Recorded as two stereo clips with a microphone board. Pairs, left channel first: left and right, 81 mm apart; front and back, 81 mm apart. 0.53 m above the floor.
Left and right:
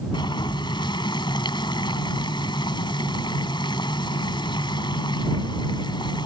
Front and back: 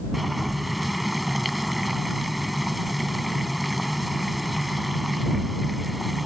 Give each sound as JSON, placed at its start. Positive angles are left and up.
{"t": 0.1, "sound": "boiling", "azimuth_deg": 90}